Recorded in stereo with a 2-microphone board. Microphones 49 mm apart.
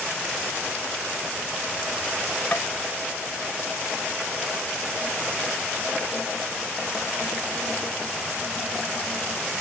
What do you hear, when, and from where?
2.5 s tapping: 40° left (ahead or behind)